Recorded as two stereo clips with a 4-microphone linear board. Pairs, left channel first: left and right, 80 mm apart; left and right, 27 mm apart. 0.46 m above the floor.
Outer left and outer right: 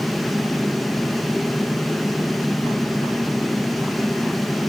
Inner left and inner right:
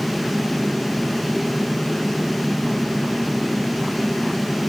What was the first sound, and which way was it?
Only background noise.